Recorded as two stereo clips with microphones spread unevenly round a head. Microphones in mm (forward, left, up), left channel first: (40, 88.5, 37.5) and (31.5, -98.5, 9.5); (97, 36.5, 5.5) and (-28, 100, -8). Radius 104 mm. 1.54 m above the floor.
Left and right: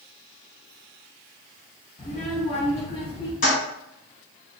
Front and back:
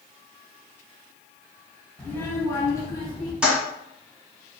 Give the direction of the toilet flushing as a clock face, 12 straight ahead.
10 o'clock.